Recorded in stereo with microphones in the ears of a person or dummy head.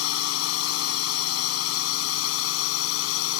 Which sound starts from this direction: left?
A drone, at 0.0 s.